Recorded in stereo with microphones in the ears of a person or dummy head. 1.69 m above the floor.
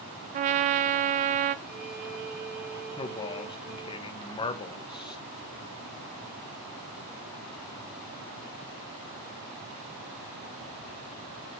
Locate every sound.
0.3 s a trumpet: 35° right (ahead or behind), 0.6 m
1.6 s a violin: 85° right, 2.5 m
3.0 s a man speaking: 25° left (ahead or behind), 1.5 m